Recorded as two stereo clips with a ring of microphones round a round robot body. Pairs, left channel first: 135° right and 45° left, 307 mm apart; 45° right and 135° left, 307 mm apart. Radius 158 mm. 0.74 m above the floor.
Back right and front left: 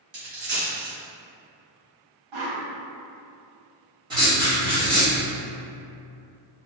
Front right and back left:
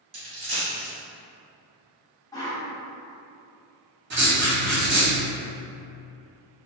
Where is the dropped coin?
65° left, 1.7 m.